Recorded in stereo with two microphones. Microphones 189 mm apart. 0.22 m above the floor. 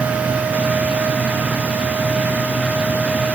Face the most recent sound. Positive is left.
No sound to turn to.